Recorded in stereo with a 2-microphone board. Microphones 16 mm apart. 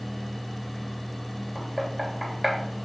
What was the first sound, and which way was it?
Knocking, centre (ahead or behind).